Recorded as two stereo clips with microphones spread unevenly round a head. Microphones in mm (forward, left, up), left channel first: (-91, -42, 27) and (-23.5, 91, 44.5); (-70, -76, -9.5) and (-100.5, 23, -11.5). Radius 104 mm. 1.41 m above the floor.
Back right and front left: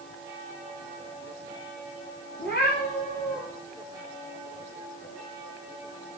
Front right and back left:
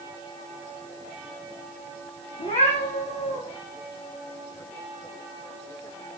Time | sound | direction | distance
2.4 | a cat meowing | 70° right | 6 m